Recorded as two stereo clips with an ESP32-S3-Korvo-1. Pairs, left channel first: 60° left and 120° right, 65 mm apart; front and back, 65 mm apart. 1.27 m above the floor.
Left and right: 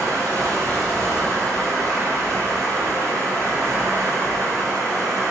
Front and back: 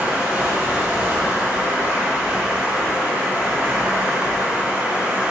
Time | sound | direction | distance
0.0 | running water | 115° right | 0.8 m